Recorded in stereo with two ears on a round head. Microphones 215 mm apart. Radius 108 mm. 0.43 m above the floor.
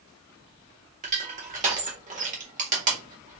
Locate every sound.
1.0 s crushing: 30° right (ahead or behind), 1.4 m